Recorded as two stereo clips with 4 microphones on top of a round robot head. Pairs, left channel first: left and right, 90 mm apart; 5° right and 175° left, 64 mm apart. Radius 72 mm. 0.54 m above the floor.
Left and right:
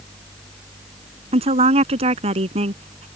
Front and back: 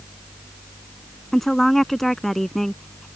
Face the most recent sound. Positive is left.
turn(degrees=-95)